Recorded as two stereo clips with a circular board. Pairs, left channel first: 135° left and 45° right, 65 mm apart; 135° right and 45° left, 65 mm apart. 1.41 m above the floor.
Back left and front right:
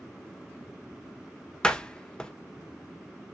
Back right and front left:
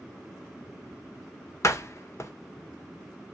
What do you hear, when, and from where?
1.6 s a door slam: 155° right, 0.7 m